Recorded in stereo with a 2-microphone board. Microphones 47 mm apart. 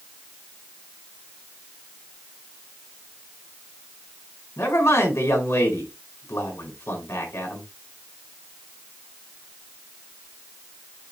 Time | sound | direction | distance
4.6 | a man speaking | 80° left | 5 m